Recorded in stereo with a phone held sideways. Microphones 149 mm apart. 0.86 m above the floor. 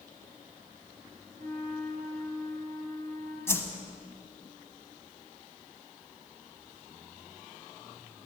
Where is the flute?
85° right, 4.5 m.